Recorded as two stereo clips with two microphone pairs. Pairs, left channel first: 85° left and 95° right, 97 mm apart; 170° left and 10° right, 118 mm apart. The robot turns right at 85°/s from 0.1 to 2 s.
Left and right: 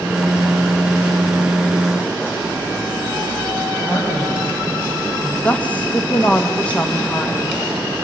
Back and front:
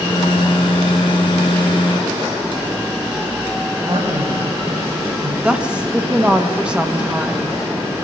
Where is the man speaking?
25° left, 5 m.